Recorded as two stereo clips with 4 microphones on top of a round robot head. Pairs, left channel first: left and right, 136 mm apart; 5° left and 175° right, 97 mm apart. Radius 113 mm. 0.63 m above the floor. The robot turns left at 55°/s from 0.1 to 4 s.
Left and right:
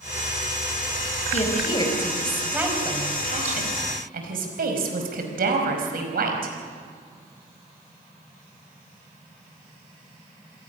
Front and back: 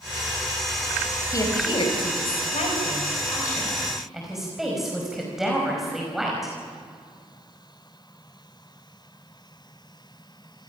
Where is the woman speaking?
60° left, 5 m; by 6.5 s 90° right, 5 m.